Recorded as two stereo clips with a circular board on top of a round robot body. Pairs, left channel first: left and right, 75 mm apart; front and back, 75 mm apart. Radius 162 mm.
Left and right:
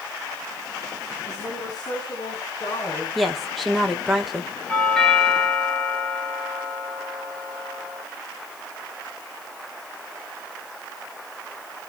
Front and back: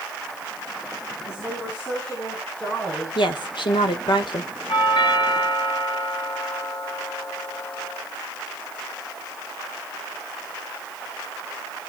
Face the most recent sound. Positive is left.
turn(degrees=10)